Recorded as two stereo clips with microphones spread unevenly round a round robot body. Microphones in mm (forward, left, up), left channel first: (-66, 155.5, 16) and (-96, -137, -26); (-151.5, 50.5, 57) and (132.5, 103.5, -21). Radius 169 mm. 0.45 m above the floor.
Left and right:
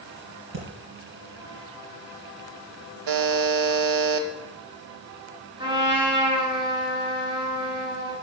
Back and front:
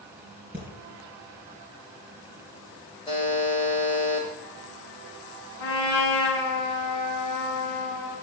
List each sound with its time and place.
0.5 s breathing: 75° right, 4 m
3.1 s a buzzer: 90° right, 0.8 m
5.6 s a trumpet: 170° right, 4.5 m